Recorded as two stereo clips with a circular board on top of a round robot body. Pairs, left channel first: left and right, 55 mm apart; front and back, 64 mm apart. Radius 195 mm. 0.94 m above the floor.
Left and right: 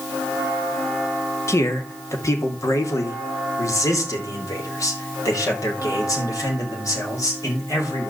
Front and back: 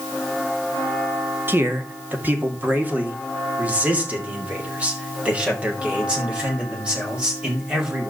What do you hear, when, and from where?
1.5 s a man speaking: 125° left, 1.9 m; by 8.1 s 105° left, 5.5 m